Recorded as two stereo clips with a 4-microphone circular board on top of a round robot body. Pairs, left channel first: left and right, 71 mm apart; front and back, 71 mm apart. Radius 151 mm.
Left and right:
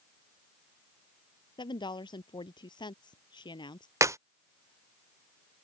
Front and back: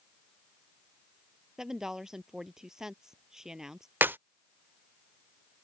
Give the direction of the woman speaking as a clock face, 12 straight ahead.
9 o'clock.